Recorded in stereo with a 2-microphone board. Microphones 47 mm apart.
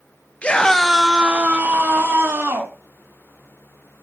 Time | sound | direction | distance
0.4 | a scream | 25° left (ahead or behind) | 0.6 m